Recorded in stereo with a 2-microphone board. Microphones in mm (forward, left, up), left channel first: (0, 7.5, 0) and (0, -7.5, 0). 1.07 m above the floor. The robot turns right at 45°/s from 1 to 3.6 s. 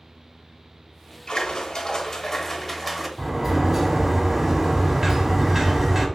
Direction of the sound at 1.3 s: 100° left.